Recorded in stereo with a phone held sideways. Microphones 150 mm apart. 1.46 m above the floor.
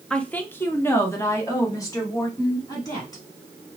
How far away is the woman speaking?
About 0.6 m.